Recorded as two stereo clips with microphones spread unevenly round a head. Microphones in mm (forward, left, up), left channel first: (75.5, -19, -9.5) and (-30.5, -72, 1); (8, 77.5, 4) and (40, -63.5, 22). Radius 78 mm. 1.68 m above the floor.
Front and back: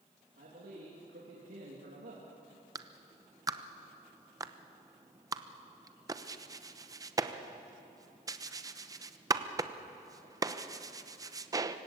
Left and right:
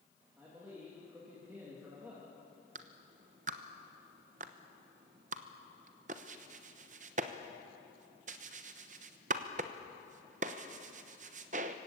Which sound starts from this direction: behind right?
A man speaking, at 0.4 s.